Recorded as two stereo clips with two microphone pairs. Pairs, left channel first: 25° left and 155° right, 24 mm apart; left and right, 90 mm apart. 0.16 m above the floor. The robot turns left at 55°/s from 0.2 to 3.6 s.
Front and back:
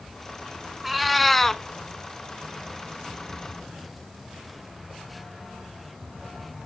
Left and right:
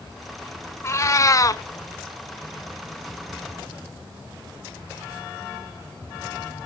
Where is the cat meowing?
130° left, 0.5 m; by 1.6 s 85° left, 0.5 m.